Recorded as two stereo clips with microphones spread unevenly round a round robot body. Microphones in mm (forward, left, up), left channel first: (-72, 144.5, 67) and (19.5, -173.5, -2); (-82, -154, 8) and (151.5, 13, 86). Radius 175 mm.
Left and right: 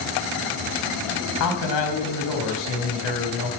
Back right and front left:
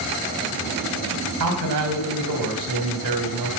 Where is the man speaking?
70° left, 3.5 m.